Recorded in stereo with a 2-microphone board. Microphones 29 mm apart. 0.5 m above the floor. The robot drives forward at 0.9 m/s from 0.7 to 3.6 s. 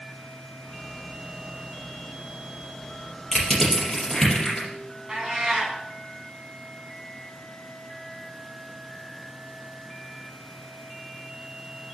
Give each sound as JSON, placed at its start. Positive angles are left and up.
{"t": 3.3, "sound": "crushing", "side_deg": 20, "distance_m": 4.5}
{"t": 5.1, "sound": "a cat meowing", "side_deg": -20, "distance_m": 2.5}